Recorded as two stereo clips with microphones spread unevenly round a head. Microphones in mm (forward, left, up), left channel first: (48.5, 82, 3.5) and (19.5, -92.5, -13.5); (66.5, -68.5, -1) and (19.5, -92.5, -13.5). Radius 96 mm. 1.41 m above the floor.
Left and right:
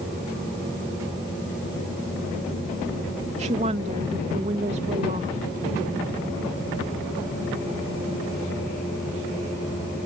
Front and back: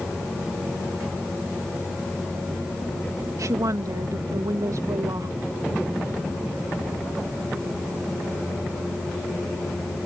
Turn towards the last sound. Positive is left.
turn(degrees=-155)